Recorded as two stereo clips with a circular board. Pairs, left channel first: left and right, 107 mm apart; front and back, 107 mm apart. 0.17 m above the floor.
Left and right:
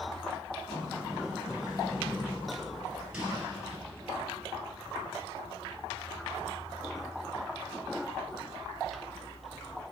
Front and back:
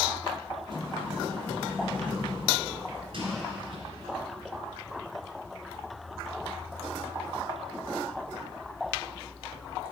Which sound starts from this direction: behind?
A sliding door, at 0.7 s.